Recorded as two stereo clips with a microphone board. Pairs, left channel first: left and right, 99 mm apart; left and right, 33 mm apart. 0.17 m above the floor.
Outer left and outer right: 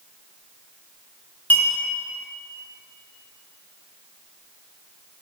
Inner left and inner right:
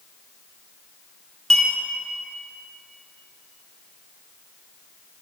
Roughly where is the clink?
Centre.